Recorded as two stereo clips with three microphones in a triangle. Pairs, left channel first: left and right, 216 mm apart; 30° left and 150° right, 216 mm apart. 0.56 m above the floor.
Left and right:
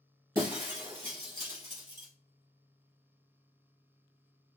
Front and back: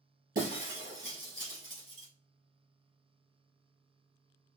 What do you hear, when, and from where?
0.3 s breaking glass: 165° right, 3 m